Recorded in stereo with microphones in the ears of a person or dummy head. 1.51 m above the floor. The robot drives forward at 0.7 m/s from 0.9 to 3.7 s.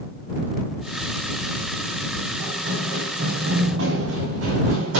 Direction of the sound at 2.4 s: 50° right (ahead or behind).